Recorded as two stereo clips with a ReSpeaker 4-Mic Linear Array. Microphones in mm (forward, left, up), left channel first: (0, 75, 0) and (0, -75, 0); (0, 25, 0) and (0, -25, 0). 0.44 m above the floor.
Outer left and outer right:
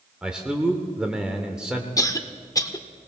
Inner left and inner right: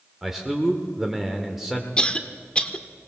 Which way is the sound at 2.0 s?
25° left (ahead or behind).